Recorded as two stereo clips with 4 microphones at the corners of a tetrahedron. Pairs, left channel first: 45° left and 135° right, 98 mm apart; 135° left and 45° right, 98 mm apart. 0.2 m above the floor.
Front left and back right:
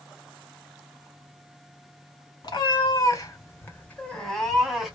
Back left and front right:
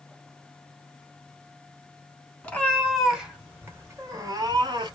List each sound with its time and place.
2.4 s a cat meowing: 65° left, 0.9 m; by 5.0 s 55° right, 1.0 m